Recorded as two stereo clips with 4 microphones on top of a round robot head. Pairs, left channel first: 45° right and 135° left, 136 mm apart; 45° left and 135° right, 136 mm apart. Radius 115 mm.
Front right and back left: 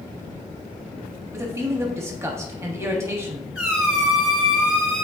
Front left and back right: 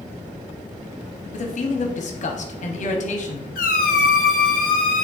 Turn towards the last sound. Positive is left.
turn(degrees=55)